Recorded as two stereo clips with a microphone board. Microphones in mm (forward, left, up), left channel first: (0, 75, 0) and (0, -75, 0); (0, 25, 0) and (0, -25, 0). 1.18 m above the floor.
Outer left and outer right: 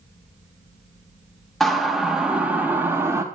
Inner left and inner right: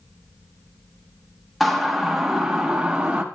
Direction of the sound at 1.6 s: Centre (ahead or behind).